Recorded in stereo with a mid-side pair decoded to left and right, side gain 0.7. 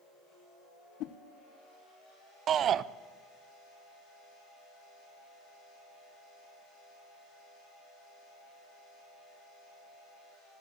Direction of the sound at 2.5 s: 40° right.